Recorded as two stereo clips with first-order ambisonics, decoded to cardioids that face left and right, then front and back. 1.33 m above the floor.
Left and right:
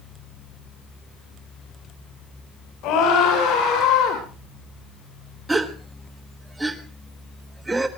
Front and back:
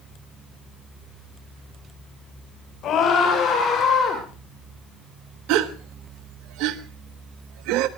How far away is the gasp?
About 0.9 m.